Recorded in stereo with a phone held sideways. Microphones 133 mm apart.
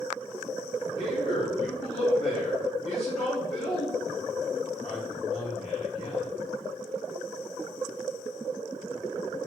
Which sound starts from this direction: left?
A man speaking, at 1.0 s.